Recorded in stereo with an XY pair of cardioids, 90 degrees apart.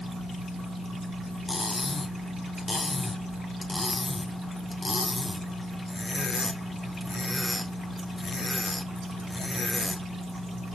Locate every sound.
1.5 s cutlery clinking: 25° left, 2.5 m